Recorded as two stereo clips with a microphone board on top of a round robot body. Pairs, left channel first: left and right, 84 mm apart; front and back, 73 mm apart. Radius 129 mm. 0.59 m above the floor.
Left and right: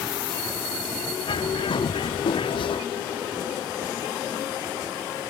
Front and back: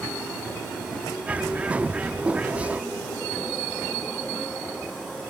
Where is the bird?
105° left.